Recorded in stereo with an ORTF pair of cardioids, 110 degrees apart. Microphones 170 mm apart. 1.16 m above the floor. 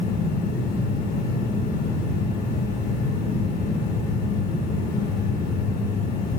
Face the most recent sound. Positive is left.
turn(degrees=60)